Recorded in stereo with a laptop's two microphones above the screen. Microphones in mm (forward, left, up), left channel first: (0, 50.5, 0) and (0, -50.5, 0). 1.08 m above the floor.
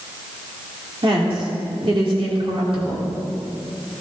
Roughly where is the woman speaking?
Right.